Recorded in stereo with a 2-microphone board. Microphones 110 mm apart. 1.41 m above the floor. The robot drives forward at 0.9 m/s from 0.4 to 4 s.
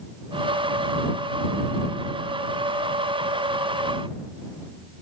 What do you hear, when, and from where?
Only background noise.